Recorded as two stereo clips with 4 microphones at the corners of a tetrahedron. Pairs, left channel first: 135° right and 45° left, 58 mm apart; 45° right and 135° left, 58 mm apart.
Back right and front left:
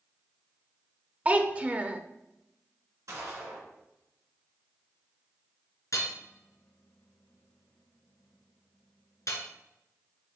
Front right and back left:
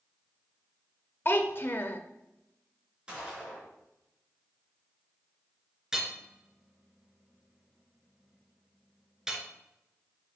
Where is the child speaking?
15° right, 0.7 m.